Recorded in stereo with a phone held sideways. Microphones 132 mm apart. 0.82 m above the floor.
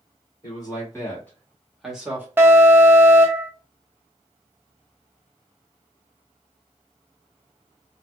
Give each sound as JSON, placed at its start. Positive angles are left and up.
{"t": 0.4, "sound": "a man speaking", "side_deg": 30, "distance_m": 2.0}
{"t": 2.4, "sound": "an alarm", "side_deg": -20, "distance_m": 0.8}